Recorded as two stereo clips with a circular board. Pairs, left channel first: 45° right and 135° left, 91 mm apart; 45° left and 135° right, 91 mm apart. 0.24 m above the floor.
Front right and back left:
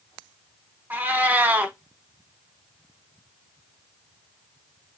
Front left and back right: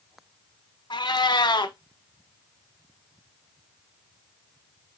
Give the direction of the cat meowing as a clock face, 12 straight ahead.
10 o'clock.